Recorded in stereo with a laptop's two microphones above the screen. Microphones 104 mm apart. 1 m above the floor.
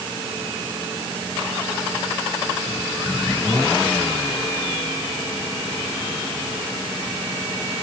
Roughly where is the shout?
I don't hear a shout.